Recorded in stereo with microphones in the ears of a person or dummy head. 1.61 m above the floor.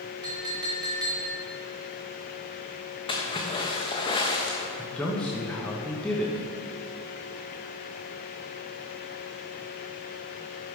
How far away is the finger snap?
No finger snap in this recording.